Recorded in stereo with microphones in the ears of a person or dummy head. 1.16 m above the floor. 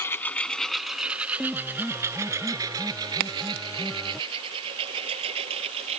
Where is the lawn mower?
15° left (ahead or behind); by 6.0 s 35° right (ahead or behind).